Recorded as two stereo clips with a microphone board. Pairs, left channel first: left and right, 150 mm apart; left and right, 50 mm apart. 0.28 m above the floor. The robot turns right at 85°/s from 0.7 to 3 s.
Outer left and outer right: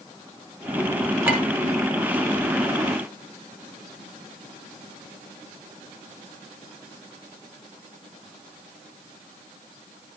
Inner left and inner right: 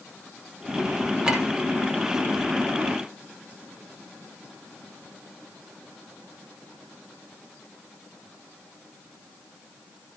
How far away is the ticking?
No ticking in this recording.